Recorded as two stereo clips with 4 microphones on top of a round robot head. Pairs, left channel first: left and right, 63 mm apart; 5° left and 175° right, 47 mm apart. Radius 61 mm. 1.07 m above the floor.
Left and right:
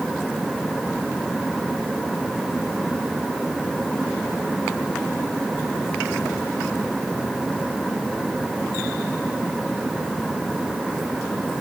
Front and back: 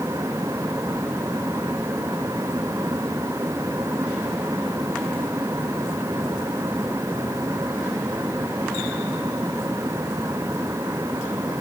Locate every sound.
Only background noise.